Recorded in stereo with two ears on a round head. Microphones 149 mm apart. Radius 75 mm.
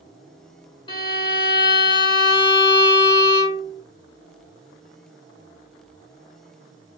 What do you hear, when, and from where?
0.9 s a violin: 30° left (ahead or behind), 1.8 m